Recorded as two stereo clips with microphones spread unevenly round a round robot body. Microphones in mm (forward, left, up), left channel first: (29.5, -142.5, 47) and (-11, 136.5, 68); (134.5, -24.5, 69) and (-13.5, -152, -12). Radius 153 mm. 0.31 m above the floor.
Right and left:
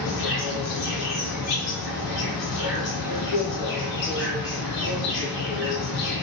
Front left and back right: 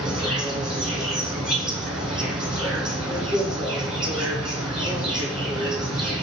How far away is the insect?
About 1.3 m.